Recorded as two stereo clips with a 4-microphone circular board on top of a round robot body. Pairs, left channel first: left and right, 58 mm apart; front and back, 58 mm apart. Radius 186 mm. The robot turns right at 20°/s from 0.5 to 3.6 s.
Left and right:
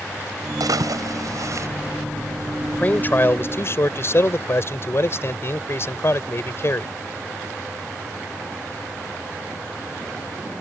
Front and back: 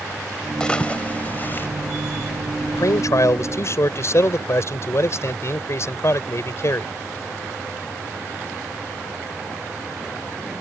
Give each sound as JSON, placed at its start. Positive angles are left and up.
{"t": 0.6, "sound": "a splash", "azimuth_deg": -75}
{"t": 2.7, "sound": "a man speaking", "azimuth_deg": 25}